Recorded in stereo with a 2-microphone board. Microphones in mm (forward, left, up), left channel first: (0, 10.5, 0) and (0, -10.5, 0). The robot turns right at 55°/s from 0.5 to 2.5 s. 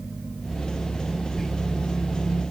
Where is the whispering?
5° right (ahead or behind), 2 m; by 1.5 s 5° left (ahead or behind), 2 m.